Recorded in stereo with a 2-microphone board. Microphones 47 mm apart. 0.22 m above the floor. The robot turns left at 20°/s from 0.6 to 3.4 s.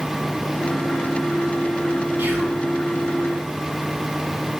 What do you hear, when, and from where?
2.2 s whispering: 50° right (ahead or behind), 1.4 m